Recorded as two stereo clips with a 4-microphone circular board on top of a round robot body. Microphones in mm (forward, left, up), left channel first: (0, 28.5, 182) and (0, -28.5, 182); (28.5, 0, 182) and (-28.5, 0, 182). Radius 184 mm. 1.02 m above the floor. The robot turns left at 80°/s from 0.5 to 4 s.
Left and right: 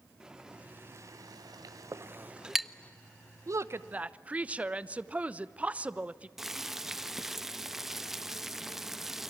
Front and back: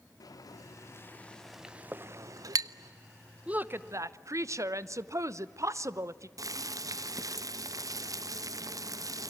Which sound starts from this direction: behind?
Boiling, at 6.4 s.